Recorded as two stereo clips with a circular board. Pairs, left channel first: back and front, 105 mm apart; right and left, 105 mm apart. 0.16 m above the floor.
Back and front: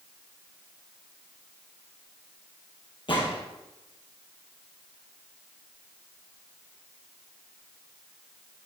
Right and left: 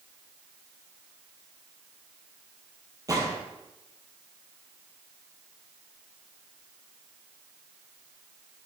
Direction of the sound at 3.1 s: 145° left.